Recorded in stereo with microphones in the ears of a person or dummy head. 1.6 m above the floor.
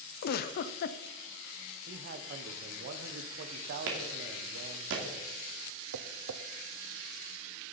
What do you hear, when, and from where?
0.2 s a giggle: 55° left (ahead or behind), 0.6 m
1.9 s a man speaking: 55° right (ahead or behind), 1.1 m
3.9 s a clap: 75° right (ahead or behind), 2.5 m
5.9 s tapping: 85° right, 0.7 m